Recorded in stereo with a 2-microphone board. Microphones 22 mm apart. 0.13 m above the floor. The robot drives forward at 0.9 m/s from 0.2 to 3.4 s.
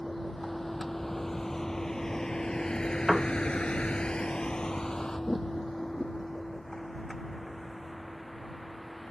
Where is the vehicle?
10° left (ahead or behind); by 9.1 s 15° left (ahead or behind).